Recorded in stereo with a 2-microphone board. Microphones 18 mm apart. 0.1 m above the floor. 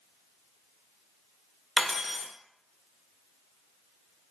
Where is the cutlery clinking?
20° right (ahead or behind), 0.7 m.